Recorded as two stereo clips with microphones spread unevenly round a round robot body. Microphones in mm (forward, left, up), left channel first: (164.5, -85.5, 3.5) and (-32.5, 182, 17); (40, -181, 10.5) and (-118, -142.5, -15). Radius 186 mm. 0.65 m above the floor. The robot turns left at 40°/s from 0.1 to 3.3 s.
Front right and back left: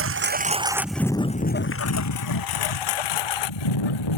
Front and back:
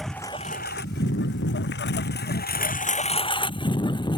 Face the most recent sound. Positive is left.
turn(degrees=-75)